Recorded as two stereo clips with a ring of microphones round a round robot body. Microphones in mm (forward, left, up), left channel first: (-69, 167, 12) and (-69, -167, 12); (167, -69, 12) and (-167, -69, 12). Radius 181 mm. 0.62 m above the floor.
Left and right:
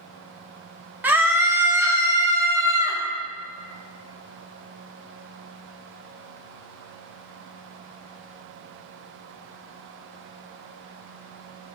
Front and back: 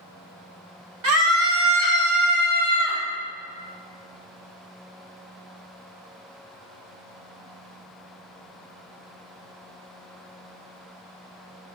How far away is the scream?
About 1.4 m.